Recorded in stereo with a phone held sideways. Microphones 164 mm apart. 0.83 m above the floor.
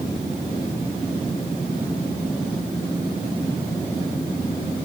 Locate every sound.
Only background noise.